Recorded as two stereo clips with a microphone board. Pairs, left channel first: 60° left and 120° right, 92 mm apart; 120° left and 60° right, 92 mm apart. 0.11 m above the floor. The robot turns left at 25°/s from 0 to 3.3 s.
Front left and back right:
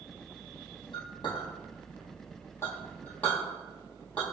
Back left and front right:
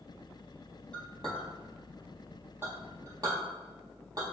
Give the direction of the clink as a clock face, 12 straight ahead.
11 o'clock.